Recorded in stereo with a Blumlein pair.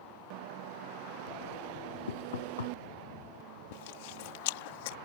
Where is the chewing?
50° left.